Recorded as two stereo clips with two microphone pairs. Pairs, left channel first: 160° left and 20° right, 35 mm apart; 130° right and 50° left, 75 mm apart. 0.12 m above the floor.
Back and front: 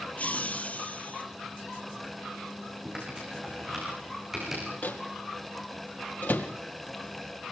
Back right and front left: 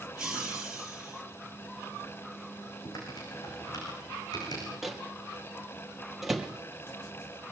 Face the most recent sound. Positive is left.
turn(degrees=140)